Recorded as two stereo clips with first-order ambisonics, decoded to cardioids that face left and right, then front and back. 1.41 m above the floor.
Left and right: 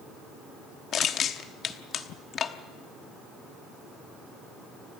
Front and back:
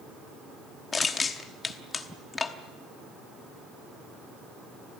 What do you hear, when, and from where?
0.9 s crushing: 60° left, 1.0 m